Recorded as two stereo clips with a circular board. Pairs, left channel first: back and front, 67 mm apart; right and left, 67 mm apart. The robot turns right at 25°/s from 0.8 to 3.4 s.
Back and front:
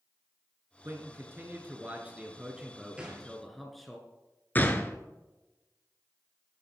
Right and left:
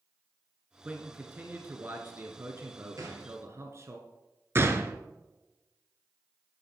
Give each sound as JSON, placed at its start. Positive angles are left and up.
{"t": 0.8, "sound": "a man speaking", "azimuth_deg": 30, "distance_m": 1.6}
{"t": 3.0, "sound": "a gunshot", "azimuth_deg": 70, "distance_m": 2.5}
{"t": 4.5, "sound": "a gunshot", "azimuth_deg": 125, "distance_m": 1.0}